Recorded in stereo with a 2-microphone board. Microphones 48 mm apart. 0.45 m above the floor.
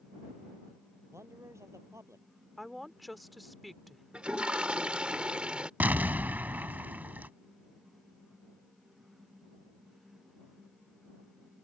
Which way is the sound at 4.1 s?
20° right (ahead or behind).